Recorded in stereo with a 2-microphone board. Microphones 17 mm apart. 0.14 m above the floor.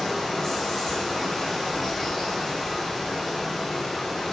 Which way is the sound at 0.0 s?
10° left (ahead or behind).